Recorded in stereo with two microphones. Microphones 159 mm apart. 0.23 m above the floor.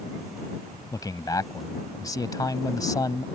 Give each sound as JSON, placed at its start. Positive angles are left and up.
{"t": 0.9, "sound": "a man speaking", "side_deg": 25}